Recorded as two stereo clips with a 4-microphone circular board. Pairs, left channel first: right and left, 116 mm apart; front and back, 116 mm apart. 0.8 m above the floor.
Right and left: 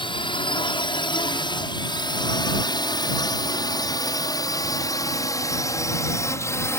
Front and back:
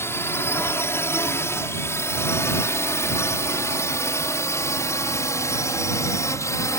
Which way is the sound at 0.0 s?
65° right.